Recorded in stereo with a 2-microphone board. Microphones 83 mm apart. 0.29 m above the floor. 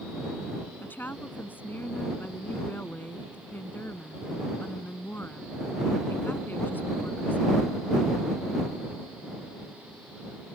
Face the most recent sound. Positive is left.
turn(degrees=25)  # may be behind; listen again after turning